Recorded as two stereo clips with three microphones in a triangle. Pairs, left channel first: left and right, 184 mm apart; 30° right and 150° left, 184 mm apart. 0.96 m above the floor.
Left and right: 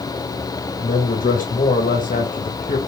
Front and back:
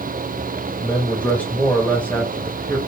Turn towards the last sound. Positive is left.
turn(degrees=50)